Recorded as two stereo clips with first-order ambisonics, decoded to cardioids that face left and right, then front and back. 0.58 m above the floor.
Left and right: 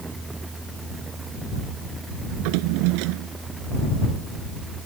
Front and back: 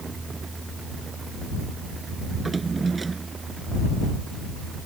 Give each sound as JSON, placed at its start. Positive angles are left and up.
{"t": 2.3, "sound": "a drawer", "azimuth_deg": -100}